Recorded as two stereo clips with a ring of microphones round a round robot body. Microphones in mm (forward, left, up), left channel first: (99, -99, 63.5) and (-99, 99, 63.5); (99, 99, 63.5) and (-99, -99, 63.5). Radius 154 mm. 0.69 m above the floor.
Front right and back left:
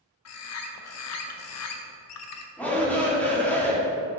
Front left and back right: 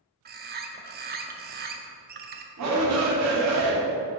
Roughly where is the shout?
Behind right.